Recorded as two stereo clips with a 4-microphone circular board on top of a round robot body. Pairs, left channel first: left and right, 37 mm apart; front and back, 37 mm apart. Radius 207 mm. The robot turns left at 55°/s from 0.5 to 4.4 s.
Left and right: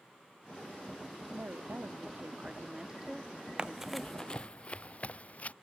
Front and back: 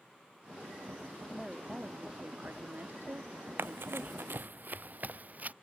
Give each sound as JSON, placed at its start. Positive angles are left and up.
{"t": 1.3, "sound": "a woman speaking", "azimuth_deg": -75}
{"t": 3.6, "sound": "running footsteps", "azimuth_deg": -155}